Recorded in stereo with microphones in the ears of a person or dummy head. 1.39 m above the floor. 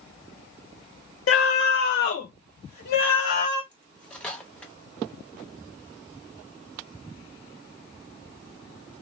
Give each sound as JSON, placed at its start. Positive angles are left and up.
{"t": 1.3, "sound": "a scream", "side_deg": 65, "distance_m": 0.5}
{"t": 3.7, "sound": "cutlery clinking", "side_deg": 5, "distance_m": 0.6}